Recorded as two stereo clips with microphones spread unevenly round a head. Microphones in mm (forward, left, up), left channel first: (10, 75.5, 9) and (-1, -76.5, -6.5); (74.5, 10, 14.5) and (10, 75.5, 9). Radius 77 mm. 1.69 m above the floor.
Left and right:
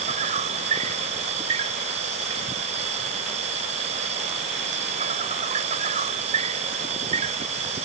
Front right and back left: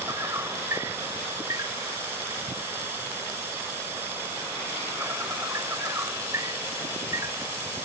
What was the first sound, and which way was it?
An insect, 150° right.